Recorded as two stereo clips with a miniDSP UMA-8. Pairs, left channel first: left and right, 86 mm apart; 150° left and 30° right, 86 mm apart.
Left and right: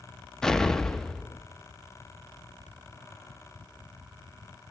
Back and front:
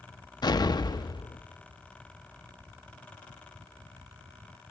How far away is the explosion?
About 0.6 m.